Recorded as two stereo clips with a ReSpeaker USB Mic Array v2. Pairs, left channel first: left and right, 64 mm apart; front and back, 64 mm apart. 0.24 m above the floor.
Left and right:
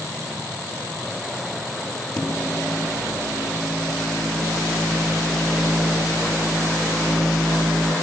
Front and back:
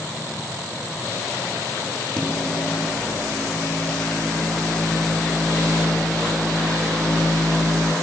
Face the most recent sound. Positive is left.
turn(degrees=75)